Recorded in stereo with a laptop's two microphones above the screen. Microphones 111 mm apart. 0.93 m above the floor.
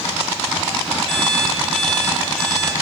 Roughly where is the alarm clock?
Centre.